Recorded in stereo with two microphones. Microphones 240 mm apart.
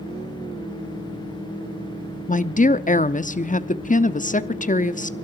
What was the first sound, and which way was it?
A woman speaking, 35° left (ahead or behind).